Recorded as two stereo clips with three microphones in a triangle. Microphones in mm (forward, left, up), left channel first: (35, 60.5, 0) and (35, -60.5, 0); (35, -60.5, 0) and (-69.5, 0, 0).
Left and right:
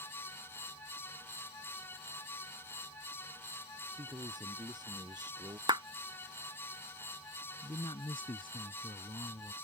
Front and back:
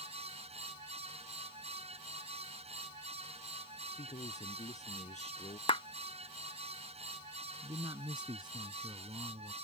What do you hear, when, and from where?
4.0 s a man speaking: 40° right
5.7 s a clap: 55° right
7.6 s a man speaking: 115° left